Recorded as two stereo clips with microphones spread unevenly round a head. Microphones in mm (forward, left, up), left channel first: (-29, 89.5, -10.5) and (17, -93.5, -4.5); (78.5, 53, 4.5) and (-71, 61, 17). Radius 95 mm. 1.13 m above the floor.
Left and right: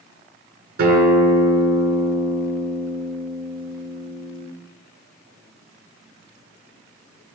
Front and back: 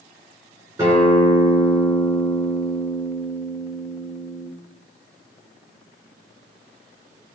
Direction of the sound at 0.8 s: 110° right.